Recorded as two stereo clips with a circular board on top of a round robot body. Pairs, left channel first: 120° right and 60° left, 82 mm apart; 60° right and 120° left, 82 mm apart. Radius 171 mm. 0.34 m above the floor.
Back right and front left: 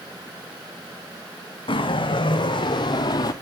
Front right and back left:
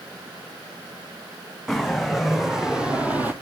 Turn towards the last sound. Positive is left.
turn(degrees=-165)